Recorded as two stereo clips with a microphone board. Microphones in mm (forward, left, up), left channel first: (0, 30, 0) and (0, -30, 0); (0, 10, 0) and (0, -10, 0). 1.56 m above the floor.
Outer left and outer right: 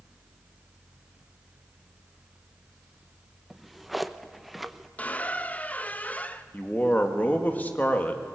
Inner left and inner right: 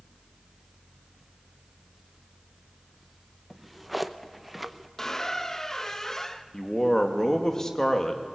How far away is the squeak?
About 0.8 m.